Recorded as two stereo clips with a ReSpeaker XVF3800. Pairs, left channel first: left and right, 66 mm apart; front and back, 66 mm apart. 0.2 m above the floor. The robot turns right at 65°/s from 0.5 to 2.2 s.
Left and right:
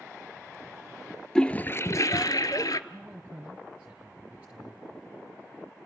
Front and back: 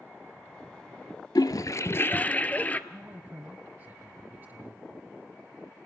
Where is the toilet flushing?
10° left, 0.6 m; by 2.8 s 65° left, 0.6 m.